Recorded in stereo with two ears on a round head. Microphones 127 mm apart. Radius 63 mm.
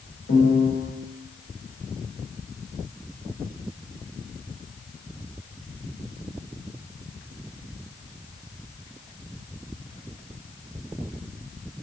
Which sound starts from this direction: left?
A piano, at 0.3 s.